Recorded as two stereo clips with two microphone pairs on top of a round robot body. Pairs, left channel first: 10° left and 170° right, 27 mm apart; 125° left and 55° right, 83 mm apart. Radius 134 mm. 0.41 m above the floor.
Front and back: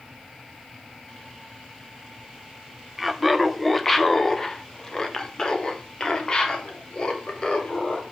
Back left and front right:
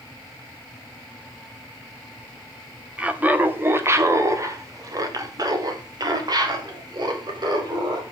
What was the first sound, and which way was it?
Laughter, 85° right.